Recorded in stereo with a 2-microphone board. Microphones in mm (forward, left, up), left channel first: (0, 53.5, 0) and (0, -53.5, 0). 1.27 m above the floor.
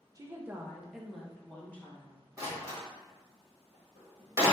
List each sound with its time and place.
0.1 s a woman speaking: 30° right (ahead or behind), 0.6 m; by 2.2 s 20° left (ahead or behind), 1.4 m
2.4 s a door slam: 30° right (ahead or behind), 1.4 m